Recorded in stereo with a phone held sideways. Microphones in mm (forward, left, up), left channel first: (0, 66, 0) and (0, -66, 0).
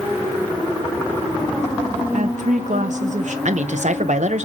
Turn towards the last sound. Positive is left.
turn(degrees=-65)  # may be behind; listen again after turning